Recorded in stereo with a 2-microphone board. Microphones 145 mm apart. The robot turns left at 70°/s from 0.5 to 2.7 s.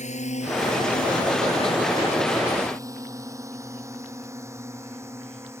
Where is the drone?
55° left (ahead or behind); by 5.6 s 20° right (ahead or behind).